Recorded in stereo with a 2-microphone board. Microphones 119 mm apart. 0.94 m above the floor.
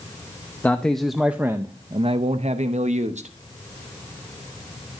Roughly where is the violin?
I don't hear a violin.